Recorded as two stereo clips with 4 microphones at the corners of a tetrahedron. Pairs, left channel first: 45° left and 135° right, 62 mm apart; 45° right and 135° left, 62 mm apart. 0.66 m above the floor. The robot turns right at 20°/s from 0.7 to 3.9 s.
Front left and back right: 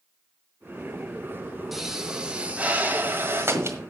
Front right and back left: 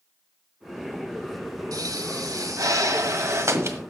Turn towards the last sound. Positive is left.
turn(degrees=180)